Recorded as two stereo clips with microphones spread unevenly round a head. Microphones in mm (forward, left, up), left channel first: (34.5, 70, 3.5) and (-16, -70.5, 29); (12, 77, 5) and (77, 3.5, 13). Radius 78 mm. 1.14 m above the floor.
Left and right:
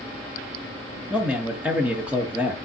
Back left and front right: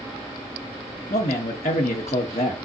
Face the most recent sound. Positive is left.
turn(degrees=165)